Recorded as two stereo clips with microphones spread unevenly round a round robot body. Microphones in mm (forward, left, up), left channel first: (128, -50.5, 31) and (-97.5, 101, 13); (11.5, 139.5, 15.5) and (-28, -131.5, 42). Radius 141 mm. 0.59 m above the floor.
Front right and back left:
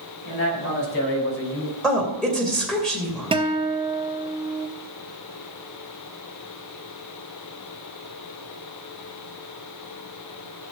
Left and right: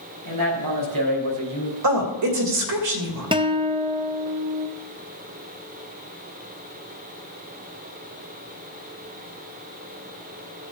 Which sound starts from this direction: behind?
A guitar, at 3.3 s.